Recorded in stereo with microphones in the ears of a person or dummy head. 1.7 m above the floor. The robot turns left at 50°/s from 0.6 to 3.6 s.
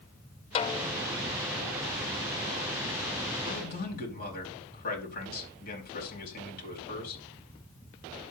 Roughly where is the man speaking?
Left.